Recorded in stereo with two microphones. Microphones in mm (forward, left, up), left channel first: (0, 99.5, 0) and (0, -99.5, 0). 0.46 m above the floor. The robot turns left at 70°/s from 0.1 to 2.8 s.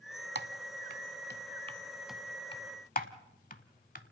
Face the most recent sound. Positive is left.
turn(degrees=45)  # may be behind; listen again after turning